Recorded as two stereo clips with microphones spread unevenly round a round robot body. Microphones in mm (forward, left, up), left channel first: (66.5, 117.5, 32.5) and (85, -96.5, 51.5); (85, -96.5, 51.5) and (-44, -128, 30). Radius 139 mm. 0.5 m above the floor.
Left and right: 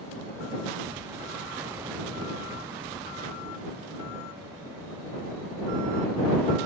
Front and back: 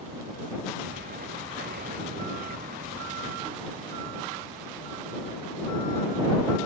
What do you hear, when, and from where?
0.8 s an explosion: 165° right